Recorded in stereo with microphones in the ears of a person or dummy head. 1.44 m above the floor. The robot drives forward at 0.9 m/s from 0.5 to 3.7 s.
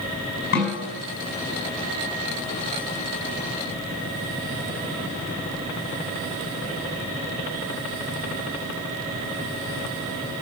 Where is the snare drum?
60° left (ahead or behind), 5.5 m.